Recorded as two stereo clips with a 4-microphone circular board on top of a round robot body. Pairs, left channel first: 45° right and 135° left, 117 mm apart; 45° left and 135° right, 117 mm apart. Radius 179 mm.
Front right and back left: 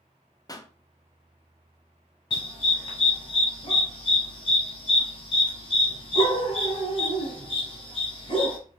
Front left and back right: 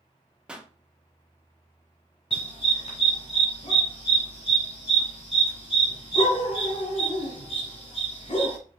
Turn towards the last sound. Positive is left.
turn(degrees=0)